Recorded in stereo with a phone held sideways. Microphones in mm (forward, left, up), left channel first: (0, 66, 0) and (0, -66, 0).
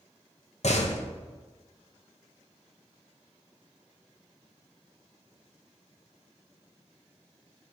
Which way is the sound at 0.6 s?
65° left (ahead or behind).